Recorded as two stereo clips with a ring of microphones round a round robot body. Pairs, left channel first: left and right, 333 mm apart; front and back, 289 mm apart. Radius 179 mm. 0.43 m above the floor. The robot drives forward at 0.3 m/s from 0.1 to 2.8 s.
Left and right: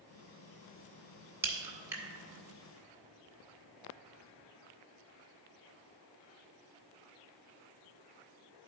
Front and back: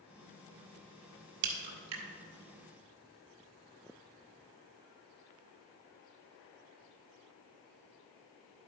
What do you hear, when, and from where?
1.4 s a crack: 175° right, 1.1 m